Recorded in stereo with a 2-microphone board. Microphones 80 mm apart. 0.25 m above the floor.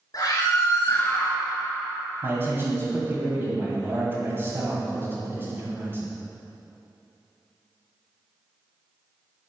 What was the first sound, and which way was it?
A scream, 50° left (ahead or behind).